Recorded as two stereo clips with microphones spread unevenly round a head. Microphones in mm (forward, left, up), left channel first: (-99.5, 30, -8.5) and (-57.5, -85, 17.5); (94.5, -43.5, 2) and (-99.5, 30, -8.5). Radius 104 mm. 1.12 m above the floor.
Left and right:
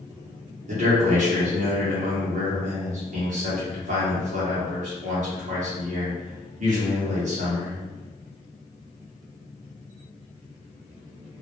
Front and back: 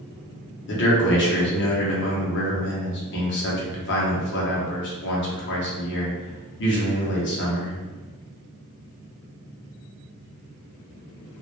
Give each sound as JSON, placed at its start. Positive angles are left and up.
{"t": 0.7, "sound": "a man speaking", "azimuth_deg": -40, "distance_m": 0.7}